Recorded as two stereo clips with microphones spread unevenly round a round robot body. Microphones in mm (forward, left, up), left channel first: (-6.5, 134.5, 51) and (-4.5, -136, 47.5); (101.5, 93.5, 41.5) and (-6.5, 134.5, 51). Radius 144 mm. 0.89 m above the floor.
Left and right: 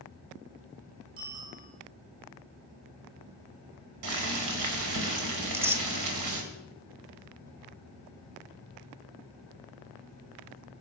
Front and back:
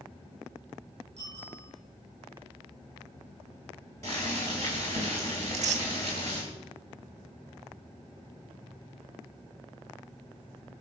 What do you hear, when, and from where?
1.2 s a bicycle bell: 145° right, 7.5 m
4.0 s boiling: 100° right, 3 m
5.4 s tearing paper: 170° right, 1.1 m